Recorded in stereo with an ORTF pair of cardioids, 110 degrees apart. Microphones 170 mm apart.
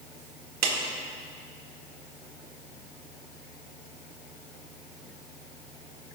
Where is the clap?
65° right, 1.9 m.